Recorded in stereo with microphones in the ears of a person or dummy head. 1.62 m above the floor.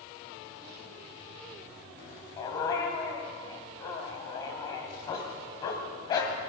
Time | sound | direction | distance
2.4 | a dog barking | 35° left (ahead or behind) | 3 m